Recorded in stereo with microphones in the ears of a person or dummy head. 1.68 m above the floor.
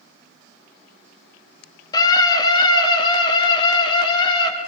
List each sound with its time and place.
1.9 s a scream: 25° left (ahead or behind), 3 m; by 4.5 s 30° left (ahead or behind), 4.5 m